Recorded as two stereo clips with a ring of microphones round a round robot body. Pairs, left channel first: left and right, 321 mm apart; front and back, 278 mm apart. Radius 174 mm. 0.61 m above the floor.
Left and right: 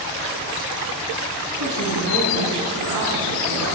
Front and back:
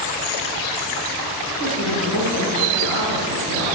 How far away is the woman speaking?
About 6 m.